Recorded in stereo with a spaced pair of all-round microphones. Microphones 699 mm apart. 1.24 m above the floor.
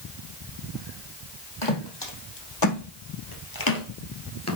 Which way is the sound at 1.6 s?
35° left (ahead or behind).